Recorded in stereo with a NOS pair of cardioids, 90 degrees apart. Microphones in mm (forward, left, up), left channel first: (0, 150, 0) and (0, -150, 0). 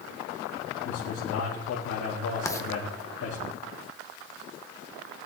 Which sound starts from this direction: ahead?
Writing, at 2.5 s.